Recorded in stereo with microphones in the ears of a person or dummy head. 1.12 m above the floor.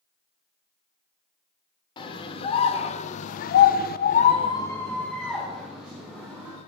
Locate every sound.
2.0 s a scream: 30° left (ahead or behind), 1.7 m; by 6.6 s 10° right (ahead or behind), 2 m